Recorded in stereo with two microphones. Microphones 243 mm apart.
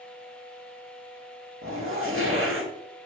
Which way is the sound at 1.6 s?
60° right (ahead or behind).